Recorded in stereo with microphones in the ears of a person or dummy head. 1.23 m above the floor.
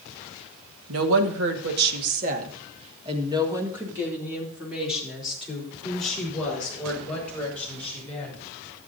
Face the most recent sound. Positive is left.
turn(degrees=10)  # may be behind; listen again after turning